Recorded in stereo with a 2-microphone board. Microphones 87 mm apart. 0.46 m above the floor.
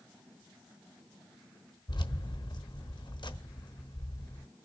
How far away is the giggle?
I don't hear a giggle.